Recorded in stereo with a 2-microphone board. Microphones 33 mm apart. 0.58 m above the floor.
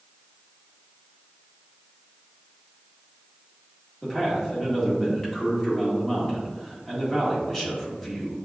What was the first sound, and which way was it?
A man speaking, 15° left (ahead or behind).